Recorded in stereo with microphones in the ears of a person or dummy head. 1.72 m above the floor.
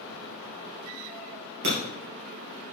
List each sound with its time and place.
1.6 s breaking glass: 50° right (ahead or behind), 3 m